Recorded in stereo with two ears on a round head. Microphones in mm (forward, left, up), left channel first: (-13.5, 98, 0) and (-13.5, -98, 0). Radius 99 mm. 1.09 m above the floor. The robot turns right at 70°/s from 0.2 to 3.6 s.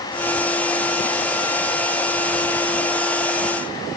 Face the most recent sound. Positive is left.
No sound to turn to.